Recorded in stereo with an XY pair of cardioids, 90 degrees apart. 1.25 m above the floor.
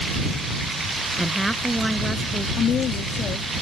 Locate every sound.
1.2 s a woman speaking: 5° right
2.6 s a woman speaking: 65° left